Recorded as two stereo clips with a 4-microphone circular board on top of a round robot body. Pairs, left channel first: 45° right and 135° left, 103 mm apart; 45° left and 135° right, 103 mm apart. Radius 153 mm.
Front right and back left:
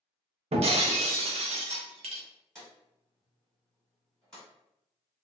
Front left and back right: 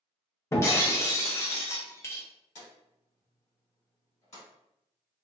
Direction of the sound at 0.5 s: 110° left.